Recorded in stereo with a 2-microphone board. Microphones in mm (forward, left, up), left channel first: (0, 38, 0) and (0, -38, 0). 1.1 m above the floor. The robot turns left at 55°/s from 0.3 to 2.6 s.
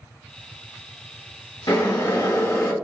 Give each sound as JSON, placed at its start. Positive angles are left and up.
{"t": 1.7, "sound": "boiling", "azimuth_deg": 90, "distance_m": 1.4}